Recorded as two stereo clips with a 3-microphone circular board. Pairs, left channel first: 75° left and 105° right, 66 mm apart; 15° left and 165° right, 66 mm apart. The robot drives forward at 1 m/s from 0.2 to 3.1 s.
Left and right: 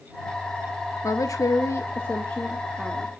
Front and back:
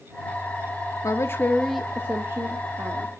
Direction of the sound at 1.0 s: 45° left.